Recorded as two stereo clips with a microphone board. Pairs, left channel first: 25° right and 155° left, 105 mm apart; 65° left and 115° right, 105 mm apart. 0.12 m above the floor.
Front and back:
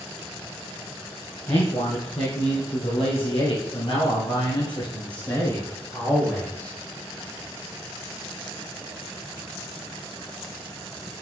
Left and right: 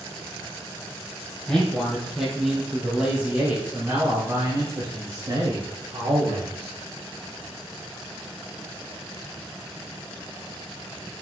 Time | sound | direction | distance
1.5 | a man speaking | 15° right | 3.5 m